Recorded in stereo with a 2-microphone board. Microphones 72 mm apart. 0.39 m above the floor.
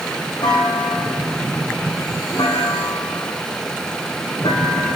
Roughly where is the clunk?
Left.